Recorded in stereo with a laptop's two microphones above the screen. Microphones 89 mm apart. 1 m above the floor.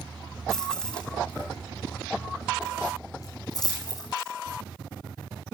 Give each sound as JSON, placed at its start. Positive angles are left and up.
{"t": 0.5, "sound": "keys jangling", "side_deg": 5, "distance_m": 4.5}